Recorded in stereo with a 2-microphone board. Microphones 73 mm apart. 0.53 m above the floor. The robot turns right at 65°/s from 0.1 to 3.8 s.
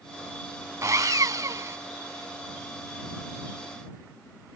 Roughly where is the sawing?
Behind right.